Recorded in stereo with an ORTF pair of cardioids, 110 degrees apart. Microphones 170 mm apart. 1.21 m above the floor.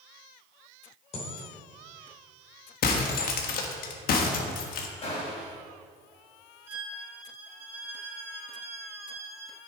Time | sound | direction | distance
1.1 | a dropped coin | 40° left | 2.5 m
2.8 | breaking glass | 65° left | 1.2 m
5.0 | a gunshot | 40° left | 3.5 m
6.7 | a violin | 15° right | 4 m